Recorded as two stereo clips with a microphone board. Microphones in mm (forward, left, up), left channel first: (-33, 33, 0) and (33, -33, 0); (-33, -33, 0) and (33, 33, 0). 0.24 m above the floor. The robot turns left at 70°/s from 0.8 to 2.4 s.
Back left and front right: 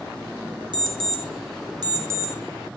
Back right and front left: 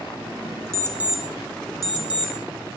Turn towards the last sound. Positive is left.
turn(degrees=-125)